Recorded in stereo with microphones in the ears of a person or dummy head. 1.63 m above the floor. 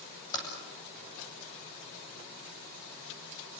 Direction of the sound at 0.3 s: 20° left (ahead or behind).